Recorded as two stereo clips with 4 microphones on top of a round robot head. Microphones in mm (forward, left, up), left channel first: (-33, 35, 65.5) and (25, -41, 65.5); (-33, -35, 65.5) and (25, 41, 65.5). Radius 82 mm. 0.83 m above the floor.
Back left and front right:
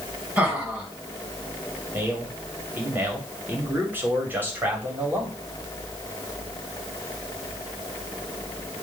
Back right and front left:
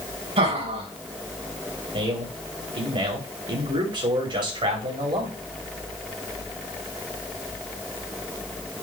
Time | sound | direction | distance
0.4 | laughter | 25° left | 4 m
1.9 | a man speaking | 20° left | 3 m